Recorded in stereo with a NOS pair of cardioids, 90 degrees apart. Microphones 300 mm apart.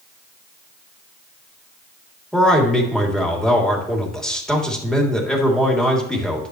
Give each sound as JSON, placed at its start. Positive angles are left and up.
{"t": 2.3, "sound": "a man speaking", "azimuth_deg": 0, "distance_m": 3.0}